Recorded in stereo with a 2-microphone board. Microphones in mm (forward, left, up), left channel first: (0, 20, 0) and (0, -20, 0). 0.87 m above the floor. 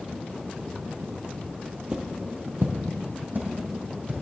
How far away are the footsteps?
About 1.2 m.